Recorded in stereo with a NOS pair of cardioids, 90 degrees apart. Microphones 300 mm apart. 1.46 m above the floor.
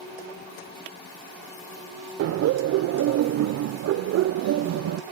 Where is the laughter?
55° right, 0.6 m.